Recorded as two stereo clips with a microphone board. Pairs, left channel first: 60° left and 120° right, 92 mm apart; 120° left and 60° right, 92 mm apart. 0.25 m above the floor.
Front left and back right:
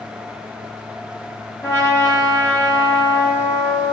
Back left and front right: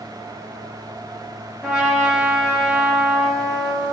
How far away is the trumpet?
About 1.4 m.